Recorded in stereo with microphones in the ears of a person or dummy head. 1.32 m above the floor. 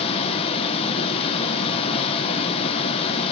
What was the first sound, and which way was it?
Running water, 25° left (ahead or behind).